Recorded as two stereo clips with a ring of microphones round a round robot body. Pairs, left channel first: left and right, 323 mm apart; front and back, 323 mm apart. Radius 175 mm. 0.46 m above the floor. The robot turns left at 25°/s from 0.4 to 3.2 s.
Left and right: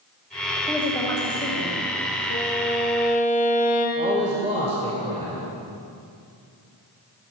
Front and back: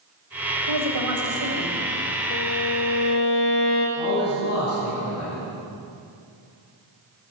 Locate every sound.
0.6 s a woman speaking: 175° right, 2.5 m; by 1.8 s 155° left, 2.5 m
2.3 s a violin: 45° left, 3.5 m; by 3.9 s 25° left, 3.5 m
4.0 s a man speaking: 30° right, 2 m